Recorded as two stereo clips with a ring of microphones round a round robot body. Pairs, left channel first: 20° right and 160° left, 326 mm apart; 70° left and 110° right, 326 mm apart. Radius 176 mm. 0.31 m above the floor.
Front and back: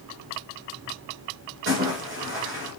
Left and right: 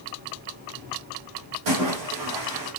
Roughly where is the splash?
Behind right.